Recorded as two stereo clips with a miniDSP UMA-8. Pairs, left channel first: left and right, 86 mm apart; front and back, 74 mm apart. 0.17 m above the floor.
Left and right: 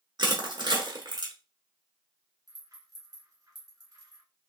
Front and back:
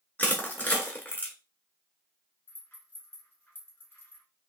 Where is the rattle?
55° right, 1.3 m.